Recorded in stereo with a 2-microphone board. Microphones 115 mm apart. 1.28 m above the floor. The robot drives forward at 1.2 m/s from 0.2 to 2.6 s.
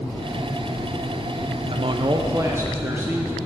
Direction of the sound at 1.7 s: 50° right (ahead or behind).